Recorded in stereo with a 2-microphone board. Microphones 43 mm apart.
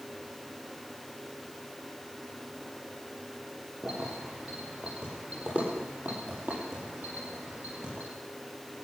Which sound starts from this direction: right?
Keys jangling, at 3.8 s.